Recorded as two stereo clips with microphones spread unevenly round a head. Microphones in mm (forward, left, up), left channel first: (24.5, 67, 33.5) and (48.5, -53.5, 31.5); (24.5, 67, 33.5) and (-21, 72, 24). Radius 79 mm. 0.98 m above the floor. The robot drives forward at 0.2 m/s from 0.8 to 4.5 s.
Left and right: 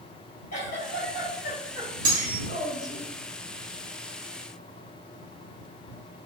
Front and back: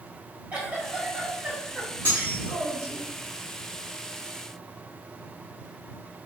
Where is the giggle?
125° left, 1.5 m; by 3.0 s 135° left, 1.8 m.